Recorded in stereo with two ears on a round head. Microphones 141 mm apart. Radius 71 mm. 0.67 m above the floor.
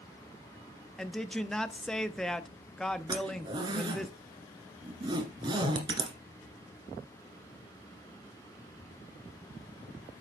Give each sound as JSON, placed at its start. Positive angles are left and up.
{"t": 1.0, "sound": "a woman speaking", "side_deg": 5, "distance_m": 0.5}
{"t": 3.1, "sound": "a zipper", "side_deg": -30, "distance_m": 1.5}